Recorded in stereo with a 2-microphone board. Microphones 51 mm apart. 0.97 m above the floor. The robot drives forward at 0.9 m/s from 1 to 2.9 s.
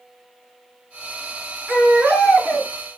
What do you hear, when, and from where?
1.7 s a baby crying: 35° right (ahead or behind), 4.5 m; by 2.7 s 45° right (ahead or behind), 3.5 m